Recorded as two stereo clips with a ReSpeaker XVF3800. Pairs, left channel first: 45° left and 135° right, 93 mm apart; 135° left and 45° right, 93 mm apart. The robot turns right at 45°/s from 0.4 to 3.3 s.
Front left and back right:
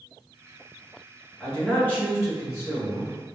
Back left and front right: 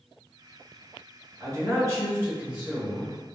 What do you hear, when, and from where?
1.4 s a man speaking: 35° right, 1.9 m; by 3.1 s 45° left, 1.9 m